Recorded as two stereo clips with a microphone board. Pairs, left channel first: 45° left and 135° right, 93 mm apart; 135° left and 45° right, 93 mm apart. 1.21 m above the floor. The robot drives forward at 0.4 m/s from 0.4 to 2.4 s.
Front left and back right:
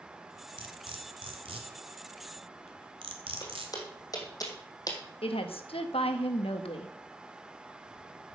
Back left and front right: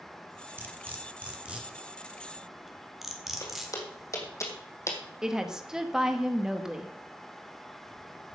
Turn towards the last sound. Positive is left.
turn(degrees=40)